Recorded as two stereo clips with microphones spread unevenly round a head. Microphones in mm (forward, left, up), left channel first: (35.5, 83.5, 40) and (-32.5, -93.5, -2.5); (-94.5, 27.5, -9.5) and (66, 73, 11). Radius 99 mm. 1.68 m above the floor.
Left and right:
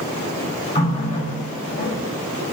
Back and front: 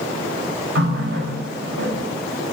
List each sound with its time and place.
0.8 s a running tap: 15° left, 5 m